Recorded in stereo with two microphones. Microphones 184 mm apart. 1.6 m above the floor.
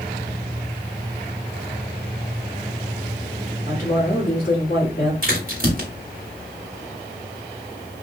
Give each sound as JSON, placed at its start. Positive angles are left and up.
{"t": 3.7, "sound": "a woman speaking", "side_deg": 55, "distance_m": 1.8}
{"t": 5.2, "sound": "a crack", "side_deg": -50, "distance_m": 1.8}